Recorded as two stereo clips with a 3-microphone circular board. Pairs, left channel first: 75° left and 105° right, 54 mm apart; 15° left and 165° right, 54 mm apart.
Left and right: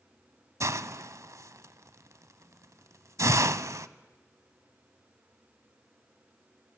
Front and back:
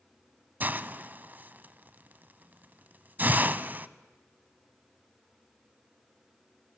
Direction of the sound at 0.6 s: 110° right.